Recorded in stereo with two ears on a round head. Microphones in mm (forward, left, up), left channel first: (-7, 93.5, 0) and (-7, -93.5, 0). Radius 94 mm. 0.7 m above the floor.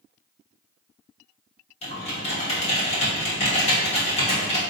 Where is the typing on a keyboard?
30° left (ahead or behind), 1.1 m.